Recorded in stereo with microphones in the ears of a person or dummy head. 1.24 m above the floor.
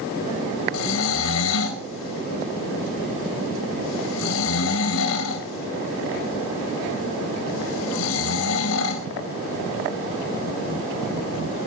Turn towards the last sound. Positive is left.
turn(degrees=85)